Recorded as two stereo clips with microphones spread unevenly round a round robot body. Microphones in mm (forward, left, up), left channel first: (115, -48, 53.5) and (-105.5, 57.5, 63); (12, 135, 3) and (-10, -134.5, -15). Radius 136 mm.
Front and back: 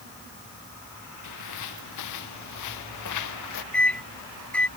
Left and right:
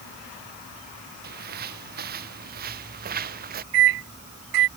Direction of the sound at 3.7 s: 110° right.